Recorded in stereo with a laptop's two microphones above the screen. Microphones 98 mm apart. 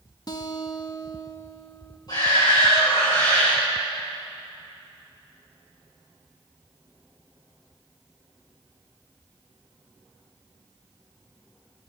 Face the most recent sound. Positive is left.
turn(degrees=45)  # may be behind; listen again after turning